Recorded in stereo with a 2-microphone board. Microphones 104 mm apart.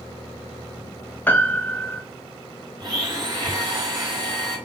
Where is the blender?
45° right (ahead or behind), 2 m.